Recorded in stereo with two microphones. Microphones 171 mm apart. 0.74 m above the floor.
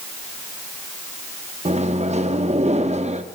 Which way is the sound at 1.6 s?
40° right (ahead or behind).